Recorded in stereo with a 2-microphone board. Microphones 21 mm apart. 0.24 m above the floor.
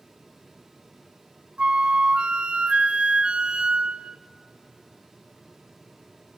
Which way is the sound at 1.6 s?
50° right (ahead or behind).